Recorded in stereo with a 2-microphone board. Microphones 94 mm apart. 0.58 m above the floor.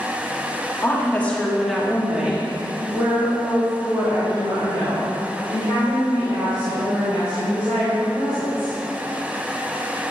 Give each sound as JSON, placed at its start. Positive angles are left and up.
{"t": 0.8, "sound": "a woman speaking", "side_deg": 25, "distance_m": 1.3}